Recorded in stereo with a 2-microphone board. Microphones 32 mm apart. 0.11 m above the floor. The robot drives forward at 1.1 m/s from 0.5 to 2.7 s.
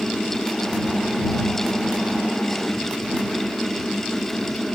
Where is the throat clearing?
I don't hear throat clearing.